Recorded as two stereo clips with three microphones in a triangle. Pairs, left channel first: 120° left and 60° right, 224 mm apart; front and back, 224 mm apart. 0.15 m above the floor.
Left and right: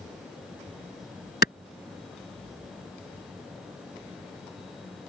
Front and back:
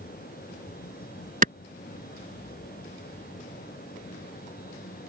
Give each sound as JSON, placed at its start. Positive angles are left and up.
{"t": 1.4, "sound": "a clap", "azimuth_deg": 140}